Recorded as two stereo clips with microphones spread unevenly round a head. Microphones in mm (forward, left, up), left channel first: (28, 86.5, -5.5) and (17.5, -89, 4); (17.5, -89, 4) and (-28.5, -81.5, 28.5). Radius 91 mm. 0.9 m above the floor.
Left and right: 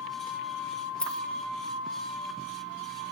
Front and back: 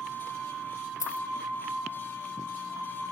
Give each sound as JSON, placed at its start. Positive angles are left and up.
{"t": 1.0, "sound": "a dropped coin", "azimuth_deg": 0}